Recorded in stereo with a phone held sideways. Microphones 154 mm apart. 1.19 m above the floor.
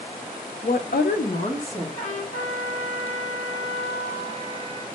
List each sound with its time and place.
0.6 s a woman speaking: 50° left (ahead or behind), 0.5 m; by 1.9 s 40° left (ahead or behind), 1.2 m
2.0 s a trumpet: 60° left (ahead or behind), 1.8 m